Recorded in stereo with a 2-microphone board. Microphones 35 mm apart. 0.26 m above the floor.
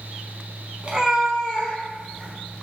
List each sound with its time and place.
0.8 s a cat meowing: 30° right (ahead or behind), 0.7 m; by 2.3 s 30° left (ahead or behind), 1.6 m